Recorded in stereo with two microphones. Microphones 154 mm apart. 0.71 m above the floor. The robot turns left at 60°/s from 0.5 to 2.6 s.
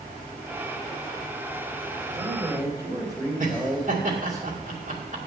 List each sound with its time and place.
2.1 s a man speaking: 115° right, 2.5 m; by 4.4 s 150° right, 2.5 m
3.4 s laughter: 60° right (ahead or behind), 2 m